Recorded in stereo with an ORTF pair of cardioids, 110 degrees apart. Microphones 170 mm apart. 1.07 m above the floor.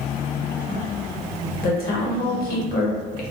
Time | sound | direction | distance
1.6 | a woman speaking | 60° left | 1.1 m